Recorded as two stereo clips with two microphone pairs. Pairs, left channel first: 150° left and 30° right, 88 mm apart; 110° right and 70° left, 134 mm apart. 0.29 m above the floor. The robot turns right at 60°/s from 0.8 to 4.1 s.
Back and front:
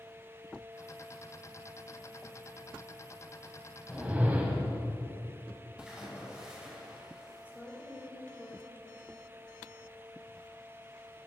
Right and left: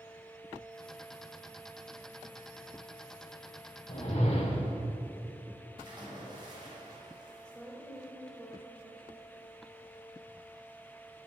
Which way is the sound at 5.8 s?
45° left.